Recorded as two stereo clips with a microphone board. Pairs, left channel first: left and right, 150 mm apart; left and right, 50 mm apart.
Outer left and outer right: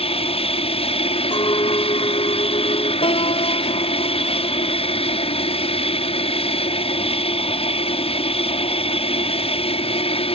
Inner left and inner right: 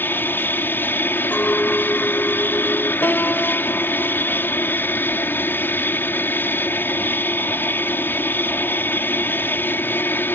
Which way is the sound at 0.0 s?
40° left (ahead or behind).